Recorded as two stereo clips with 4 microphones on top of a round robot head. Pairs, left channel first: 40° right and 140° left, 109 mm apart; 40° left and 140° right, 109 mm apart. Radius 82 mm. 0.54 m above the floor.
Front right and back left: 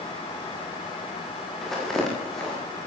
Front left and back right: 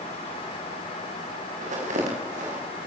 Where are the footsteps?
130° right, 8.5 m.